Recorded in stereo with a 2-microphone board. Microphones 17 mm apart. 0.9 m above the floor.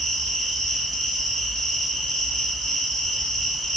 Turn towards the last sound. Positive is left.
turn(degrees=50)  # may be behind; listen again after turning